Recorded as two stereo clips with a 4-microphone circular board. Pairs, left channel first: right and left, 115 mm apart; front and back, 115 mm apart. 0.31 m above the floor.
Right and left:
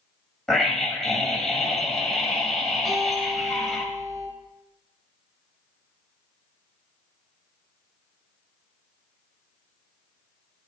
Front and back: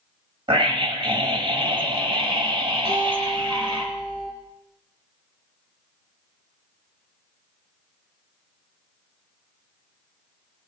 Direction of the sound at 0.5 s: 175° right.